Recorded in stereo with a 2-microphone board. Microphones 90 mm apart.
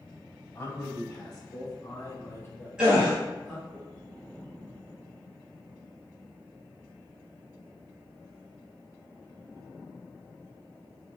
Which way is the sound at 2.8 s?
10° right (ahead or behind).